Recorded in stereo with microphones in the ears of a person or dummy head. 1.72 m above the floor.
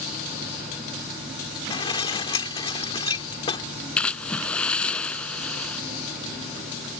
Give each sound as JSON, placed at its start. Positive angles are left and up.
{"t": 1.7, "sound": "dishes clattering", "side_deg": 30}
{"t": 4.0, "sound": "a splash", "side_deg": 5}